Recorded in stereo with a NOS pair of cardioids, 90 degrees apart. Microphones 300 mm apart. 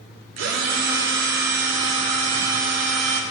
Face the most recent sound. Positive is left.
turn(degrees=-70)